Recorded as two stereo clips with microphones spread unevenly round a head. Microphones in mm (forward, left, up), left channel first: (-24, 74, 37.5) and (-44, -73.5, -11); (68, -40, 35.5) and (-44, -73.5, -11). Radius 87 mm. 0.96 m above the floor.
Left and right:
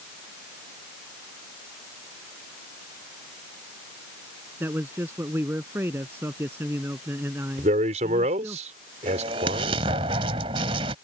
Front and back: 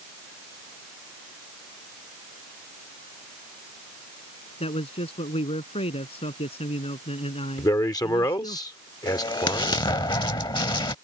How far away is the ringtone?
No ringtone in this recording.